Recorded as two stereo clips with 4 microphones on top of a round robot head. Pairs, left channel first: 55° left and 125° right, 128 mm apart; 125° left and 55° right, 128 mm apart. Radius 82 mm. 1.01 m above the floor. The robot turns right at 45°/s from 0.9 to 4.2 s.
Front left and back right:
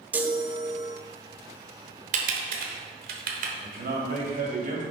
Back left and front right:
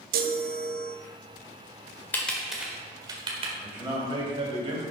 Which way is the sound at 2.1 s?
160° right.